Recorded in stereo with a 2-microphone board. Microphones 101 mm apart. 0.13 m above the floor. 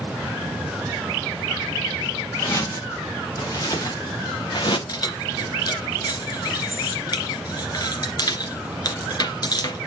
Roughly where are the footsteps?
Left.